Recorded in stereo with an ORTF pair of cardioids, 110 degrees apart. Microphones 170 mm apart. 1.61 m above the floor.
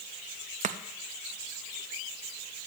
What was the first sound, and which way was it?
Chopping, 45° right.